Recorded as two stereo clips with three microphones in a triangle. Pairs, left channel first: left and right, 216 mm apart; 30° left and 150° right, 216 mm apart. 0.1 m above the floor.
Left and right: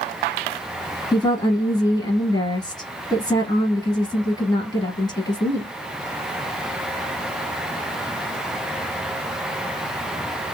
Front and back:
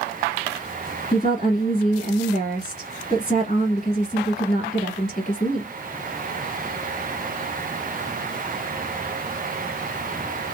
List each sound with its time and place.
1.1 s a woman speaking: 45° left, 1.6 m